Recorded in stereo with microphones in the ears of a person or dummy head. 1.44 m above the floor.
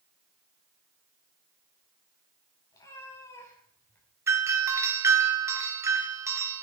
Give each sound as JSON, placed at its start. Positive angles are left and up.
{"t": 2.7, "sound": "a cat meowing", "side_deg": 20, "distance_m": 6.0}
{"t": 4.3, "sound": "a doorbell", "side_deg": -20, "distance_m": 1.8}